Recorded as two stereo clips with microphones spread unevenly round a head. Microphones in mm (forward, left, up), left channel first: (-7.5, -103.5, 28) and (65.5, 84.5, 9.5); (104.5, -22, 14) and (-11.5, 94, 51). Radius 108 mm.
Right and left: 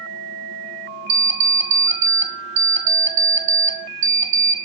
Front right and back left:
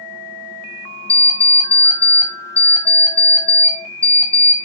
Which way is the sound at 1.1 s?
55° left.